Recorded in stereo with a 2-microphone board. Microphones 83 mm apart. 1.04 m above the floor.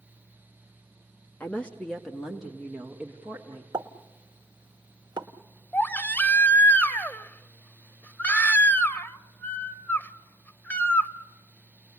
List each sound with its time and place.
1.4 s a woman speaking: 20° left (ahead or behind), 1.5 m; by 3.6 s 20° right (ahead or behind), 2.5 m
3.7 s a pop: 60° right (ahead or behind), 1.2 m
5.7 s a baby crying: 20° left (ahead or behind), 0.7 m